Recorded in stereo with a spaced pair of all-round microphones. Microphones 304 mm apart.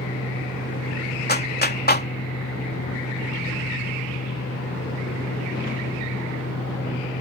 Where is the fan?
60° left (ahead or behind).